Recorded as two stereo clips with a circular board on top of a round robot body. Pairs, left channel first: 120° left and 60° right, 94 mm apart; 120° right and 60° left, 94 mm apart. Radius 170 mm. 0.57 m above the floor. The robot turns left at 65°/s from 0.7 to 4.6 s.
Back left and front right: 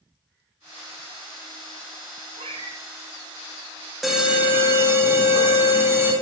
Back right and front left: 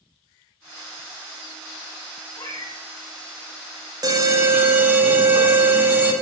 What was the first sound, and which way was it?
A cat meowing, 65° right.